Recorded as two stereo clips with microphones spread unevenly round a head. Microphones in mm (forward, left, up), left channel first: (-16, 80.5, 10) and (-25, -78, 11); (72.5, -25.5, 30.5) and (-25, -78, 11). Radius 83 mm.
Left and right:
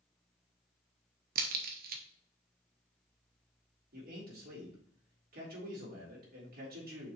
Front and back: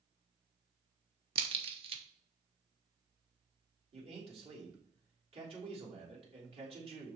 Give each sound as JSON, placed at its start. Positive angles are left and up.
{"t": 1.4, "sound": "a crack", "azimuth_deg": -115, "distance_m": 1.1}
{"t": 3.9, "sound": "a man speaking", "azimuth_deg": -125, "distance_m": 3.5}